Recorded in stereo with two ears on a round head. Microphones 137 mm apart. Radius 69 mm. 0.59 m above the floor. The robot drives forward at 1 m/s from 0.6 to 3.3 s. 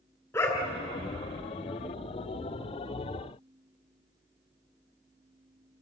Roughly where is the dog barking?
Centre.